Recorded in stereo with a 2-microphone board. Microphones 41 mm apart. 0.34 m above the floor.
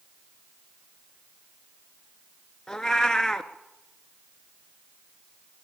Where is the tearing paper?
No tearing paper in this recording.